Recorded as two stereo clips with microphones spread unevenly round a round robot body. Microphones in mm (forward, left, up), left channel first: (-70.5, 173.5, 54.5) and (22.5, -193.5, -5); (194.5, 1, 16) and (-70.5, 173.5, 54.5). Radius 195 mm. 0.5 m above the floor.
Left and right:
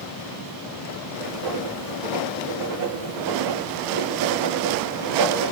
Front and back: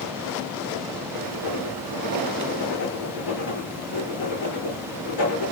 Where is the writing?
35° right, 4 m.